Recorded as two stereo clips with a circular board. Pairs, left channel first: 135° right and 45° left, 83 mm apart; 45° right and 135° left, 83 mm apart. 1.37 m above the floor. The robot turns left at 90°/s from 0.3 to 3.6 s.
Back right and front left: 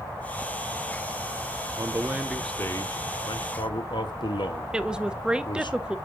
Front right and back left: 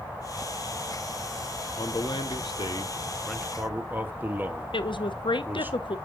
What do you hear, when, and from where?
1.8 s a man speaking: 10° left, 1.0 m; by 5.7 s 155° right, 1.0 m
4.7 s a woman speaking: 35° right, 0.7 m